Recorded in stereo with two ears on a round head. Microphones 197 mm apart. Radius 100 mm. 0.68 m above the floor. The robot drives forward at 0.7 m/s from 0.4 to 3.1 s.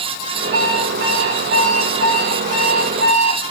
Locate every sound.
0.5 s an alarm clock: 60° right (ahead or behind), 7.5 m; by 3.4 s 70° right (ahead or behind), 6.5 m